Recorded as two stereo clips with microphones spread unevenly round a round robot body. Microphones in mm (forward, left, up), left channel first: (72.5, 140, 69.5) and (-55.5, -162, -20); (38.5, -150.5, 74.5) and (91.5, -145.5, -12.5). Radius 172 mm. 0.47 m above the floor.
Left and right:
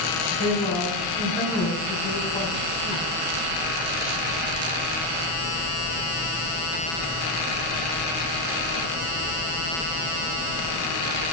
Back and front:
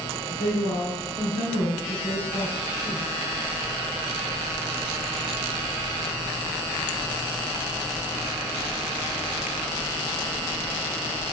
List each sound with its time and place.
0.3 s a woman speaking: 150° left, 5 m